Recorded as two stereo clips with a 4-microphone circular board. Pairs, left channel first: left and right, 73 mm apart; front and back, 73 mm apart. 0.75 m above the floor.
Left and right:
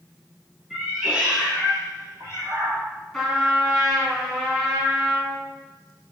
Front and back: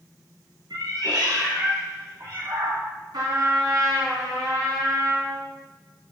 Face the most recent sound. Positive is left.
turn(degrees=175)